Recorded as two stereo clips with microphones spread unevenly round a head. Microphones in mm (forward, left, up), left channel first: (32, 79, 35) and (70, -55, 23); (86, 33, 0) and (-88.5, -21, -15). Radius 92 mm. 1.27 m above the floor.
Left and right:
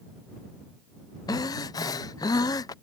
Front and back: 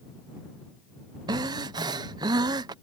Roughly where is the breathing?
Behind left.